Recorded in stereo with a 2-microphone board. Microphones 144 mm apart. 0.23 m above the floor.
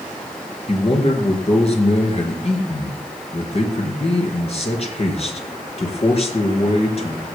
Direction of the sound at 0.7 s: 45° left (ahead or behind).